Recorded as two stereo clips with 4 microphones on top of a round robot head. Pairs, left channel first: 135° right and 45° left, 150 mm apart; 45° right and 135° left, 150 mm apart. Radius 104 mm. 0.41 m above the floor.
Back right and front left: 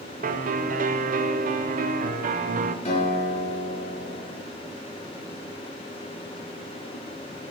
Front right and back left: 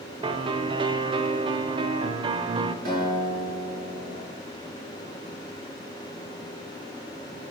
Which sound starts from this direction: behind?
A guitar, at 2.9 s.